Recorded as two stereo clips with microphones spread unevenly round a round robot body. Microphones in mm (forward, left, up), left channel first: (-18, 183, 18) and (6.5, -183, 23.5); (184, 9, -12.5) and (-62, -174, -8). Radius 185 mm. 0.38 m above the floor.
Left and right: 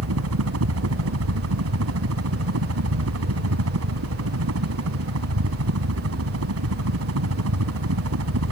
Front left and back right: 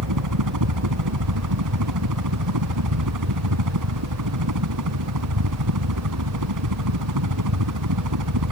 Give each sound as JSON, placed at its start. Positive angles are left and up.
{"t": 0.0, "sound": "a helicopter", "azimuth_deg": -135}